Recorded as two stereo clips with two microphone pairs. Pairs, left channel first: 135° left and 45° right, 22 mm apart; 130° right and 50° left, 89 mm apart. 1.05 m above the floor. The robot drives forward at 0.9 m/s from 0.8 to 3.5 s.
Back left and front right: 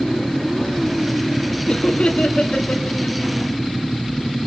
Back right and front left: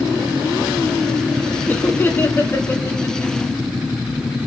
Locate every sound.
1.7 s laughter: 165° left, 1.8 m; by 3.5 s 170° left, 3.5 m